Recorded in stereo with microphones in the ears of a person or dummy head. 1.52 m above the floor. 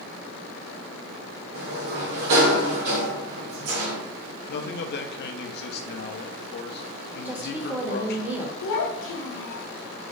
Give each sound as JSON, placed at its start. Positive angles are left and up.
{"t": 1.5, "sound": "a sliding door", "side_deg": -70, "distance_m": 1.0}
{"t": 4.5, "sound": "a man speaking", "side_deg": 55, "distance_m": 0.5}
{"t": 7.2, "sound": "a woman speaking", "side_deg": -10, "distance_m": 0.6}
{"t": 8.6, "sound": "a child speaking", "side_deg": 65, "distance_m": 0.7}